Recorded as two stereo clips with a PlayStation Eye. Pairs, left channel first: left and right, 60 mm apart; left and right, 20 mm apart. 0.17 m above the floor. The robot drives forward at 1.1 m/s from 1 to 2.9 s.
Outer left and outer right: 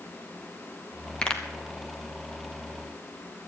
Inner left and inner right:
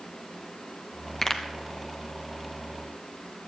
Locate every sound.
1.2 s a pop: 15° left (ahead or behind), 1.4 m